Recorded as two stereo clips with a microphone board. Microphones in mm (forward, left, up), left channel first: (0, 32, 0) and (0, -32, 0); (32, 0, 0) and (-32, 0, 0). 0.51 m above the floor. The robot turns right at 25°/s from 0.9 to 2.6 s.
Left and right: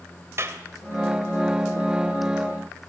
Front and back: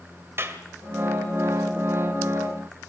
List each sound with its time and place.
0.4 s a clap: 135° right, 1.8 m